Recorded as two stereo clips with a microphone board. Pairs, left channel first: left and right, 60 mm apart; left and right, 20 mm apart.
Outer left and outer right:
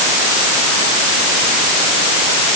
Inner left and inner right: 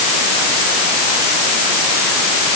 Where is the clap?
I don't hear a clap.